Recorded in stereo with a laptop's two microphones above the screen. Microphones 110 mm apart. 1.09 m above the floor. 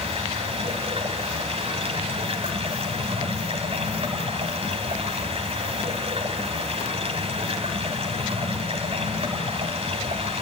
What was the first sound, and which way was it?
Running water, 60° right (ahead or behind).